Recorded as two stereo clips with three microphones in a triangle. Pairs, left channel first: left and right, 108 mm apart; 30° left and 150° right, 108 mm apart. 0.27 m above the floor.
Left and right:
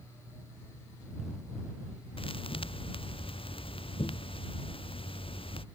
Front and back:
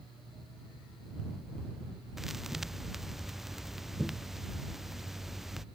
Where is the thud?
120° left.